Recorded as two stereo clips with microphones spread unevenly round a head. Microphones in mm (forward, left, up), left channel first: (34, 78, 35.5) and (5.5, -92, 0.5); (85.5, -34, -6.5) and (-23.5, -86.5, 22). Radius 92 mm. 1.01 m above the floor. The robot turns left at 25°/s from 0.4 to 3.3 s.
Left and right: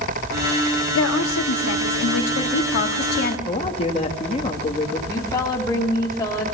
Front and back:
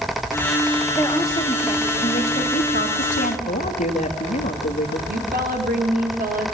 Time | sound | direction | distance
0.9 | a woman speaking | 105° left | 2 m
3.5 | a man speaking | 20° left | 2 m
5.1 | a woman speaking | 155° left | 3 m